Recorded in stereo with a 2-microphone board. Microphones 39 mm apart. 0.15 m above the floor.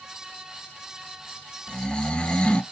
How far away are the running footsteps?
No running footsteps in this recording.